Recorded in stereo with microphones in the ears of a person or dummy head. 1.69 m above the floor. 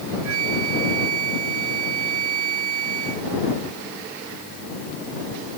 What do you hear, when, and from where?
0.2 s a flute: 85° right